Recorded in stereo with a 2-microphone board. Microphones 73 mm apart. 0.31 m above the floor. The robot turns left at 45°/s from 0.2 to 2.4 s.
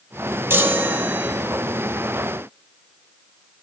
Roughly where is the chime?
Right.